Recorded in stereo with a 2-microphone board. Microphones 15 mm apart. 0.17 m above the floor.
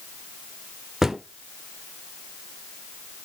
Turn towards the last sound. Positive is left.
turn(degrees=-20)  # may be behind; listen again after turning